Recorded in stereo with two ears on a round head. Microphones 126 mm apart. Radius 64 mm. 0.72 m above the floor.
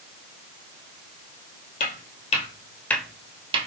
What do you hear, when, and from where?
1.8 s footsteps: 60° left (ahead or behind), 1.5 m; by 3.7 s 45° right (ahead or behind), 1.0 m